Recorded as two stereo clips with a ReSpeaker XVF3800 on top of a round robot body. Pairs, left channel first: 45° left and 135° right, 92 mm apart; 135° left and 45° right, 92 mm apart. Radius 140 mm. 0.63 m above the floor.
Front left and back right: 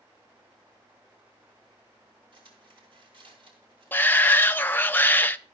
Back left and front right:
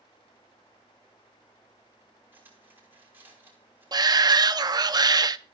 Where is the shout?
20° right, 0.7 m.